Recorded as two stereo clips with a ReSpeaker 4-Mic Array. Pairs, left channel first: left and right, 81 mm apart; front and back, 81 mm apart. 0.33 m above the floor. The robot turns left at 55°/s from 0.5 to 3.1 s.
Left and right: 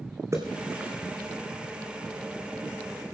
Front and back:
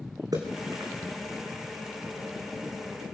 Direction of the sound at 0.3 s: 140° right.